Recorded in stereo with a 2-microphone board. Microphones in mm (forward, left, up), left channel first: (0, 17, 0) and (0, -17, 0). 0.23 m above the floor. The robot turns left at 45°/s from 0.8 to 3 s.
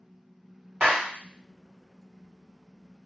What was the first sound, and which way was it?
A clap, 30° right (ahead or behind).